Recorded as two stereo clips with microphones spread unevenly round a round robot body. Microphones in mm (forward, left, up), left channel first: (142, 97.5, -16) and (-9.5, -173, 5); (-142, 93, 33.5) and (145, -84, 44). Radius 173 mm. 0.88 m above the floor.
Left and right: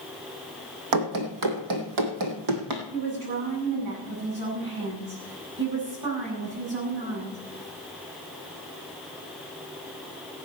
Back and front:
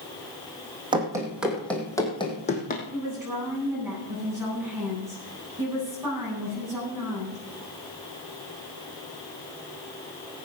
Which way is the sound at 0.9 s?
110° right.